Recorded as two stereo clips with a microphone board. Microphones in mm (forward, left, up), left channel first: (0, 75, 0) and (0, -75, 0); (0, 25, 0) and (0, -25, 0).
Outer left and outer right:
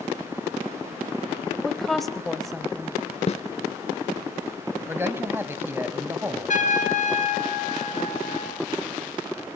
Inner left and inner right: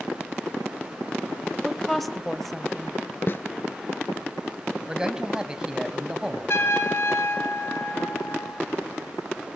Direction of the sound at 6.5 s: 60° left (ahead or behind).